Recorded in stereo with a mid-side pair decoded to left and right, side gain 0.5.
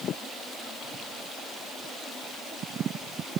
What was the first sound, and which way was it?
Only background noise.